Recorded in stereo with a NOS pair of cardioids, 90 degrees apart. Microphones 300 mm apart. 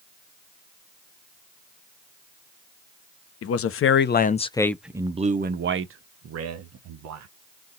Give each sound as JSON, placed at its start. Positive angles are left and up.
{"t": 3.4, "sound": "a man speaking", "azimuth_deg": 55, "distance_m": 1.0}